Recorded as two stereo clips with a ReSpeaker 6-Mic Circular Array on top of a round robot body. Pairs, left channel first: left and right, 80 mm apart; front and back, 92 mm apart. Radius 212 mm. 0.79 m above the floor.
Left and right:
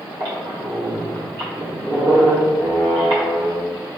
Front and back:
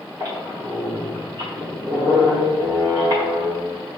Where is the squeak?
125° right, 1.5 m.